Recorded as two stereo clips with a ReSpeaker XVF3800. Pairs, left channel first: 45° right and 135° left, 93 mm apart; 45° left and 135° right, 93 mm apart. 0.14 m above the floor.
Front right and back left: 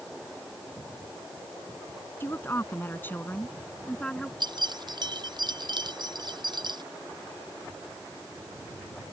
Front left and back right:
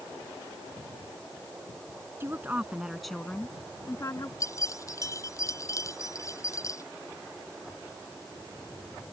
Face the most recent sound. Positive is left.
turn(degrees=100)